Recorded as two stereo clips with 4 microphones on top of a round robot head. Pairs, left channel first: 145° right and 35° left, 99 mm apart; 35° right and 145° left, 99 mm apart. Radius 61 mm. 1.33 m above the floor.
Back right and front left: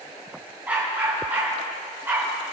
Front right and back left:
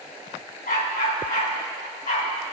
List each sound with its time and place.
0.7 s a dog barking: 40° right, 4 m; by 2.3 s 35° right, 5.5 m